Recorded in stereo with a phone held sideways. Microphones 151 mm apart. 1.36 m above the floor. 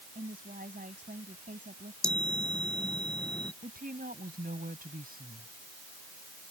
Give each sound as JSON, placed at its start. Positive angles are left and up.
{"t": 0.1, "sound": "a woman speaking", "side_deg": -70}
{"t": 2.0, "sound": "a chime", "side_deg": 5}
{"t": 3.6, "sound": "a woman speaking", "side_deg": -70}